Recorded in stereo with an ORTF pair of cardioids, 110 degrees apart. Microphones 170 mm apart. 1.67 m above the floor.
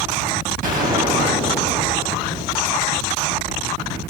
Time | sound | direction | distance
0.6 | a gunshot | 55° right | 5.5 m